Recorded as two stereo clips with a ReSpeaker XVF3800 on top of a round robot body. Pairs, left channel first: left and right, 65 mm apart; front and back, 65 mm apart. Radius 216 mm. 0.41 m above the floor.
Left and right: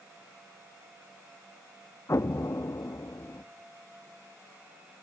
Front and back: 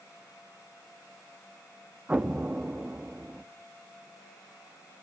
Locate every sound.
2.1 s an explosion: 115° left, 0.8 m